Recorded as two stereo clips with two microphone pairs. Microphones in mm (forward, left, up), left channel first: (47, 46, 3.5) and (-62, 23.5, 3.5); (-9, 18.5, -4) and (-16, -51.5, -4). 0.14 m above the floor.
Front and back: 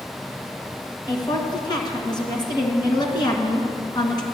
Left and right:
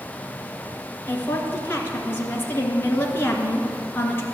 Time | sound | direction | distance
1.1 | a woman speaking | 40° left | 1.8 m